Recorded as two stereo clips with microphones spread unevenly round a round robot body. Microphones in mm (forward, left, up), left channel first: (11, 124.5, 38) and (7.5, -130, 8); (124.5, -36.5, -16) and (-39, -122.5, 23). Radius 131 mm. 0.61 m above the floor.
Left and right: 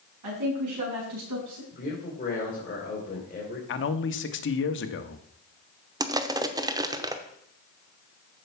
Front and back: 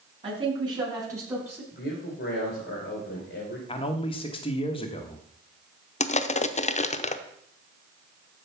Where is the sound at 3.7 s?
60° left, 1.1 m.